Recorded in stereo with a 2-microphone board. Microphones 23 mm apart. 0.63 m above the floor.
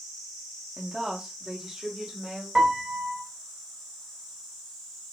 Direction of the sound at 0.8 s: 30° right (ahead or behind).